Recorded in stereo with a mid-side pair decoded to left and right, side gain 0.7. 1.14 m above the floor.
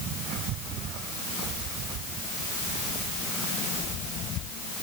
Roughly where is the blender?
I don't hear a blender.